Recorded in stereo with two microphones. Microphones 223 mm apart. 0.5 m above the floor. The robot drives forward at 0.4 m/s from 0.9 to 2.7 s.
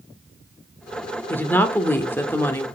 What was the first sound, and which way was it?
A woman speaking, 10° left (ahead or behind).